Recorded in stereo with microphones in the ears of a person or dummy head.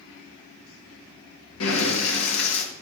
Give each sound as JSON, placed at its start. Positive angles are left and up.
{"t": 1.6, "sound": "breathing", "side_deg": 75, "distance_m": 2.0}